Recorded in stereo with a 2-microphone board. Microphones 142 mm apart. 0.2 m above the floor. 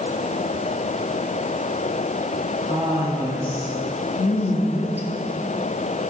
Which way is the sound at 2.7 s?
35° left (ahead or behind).